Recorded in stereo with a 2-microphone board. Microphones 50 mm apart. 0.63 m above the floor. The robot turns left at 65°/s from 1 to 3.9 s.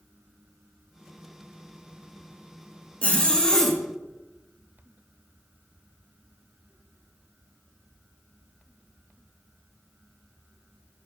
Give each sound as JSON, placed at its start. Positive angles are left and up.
{"t": 3.0, "sound": "a zipper", "side_deg": 25, "distance_m": 0.9}